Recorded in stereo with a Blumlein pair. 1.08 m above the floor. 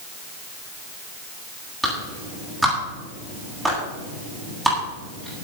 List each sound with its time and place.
1.8 s a clap: straight ahead, 9 m